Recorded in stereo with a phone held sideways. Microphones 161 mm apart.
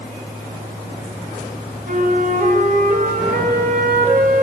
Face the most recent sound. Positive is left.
turn(degrees=-55)  # may be behind; listen again after turning